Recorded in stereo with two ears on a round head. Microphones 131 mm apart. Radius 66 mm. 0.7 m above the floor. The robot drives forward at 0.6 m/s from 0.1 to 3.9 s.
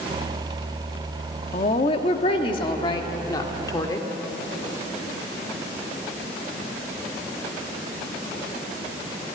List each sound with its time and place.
1.5 s a woman speaking: 45° left (ahead or behind), 1.4 m; by 4.1 s 25° left (ahead or behind), 2.5 m